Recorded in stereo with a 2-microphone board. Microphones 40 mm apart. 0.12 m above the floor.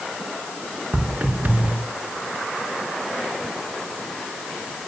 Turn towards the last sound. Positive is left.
turn(degrees=-50)  # may be behind; listen again after turning